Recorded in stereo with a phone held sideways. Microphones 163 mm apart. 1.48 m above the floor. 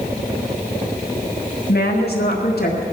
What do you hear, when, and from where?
1.7 s a woman speaking: 70° left (ahead or behind), 1.9 m